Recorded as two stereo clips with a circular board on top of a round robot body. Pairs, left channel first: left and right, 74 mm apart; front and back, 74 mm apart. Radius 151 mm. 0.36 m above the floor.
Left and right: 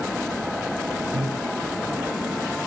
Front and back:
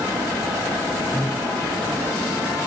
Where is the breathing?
95° right, 0.8 m.